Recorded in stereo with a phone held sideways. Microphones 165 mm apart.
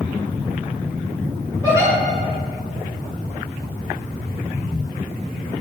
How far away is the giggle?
About 2.5 m.